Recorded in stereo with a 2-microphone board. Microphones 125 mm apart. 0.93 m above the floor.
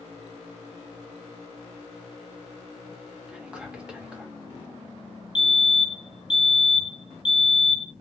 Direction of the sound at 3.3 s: 10° right (ahead or behind).